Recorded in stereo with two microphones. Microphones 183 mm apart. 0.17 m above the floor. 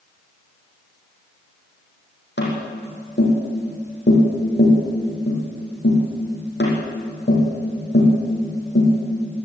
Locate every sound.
2.4 s tapping: 75° left (ahead or behind), 7.5 m